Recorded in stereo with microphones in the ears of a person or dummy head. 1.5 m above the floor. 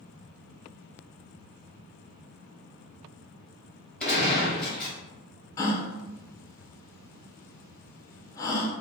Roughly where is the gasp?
Centre.